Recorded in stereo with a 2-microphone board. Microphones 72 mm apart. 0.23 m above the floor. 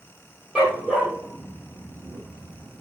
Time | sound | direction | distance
0.6 | a dog barking | 10° right (ahead or behind) | 2.0 m